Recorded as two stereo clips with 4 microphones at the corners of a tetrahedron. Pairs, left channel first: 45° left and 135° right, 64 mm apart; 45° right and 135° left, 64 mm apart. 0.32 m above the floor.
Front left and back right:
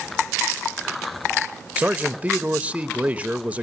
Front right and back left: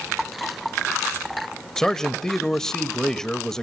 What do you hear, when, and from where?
1.8 s a man speaking: 115° right, 0.9 m